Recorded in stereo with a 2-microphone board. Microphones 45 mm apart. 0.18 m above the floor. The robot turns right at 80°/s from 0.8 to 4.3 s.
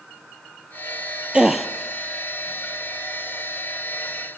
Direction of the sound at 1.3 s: 25° right (ahead or behind).